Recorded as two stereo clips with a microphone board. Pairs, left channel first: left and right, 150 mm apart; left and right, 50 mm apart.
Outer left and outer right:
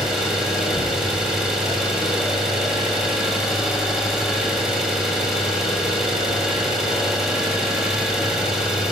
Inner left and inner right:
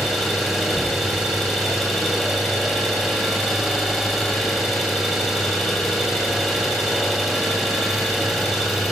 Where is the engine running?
Centre (ahead or behind), 3.5 m.